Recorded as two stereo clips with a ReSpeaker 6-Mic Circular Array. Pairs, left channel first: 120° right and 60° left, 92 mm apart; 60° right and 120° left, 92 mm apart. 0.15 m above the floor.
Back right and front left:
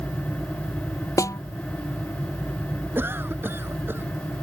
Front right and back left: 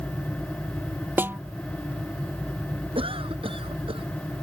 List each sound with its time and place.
1.2 s a snare drum: 175° right
3.0 s a cough: 125° left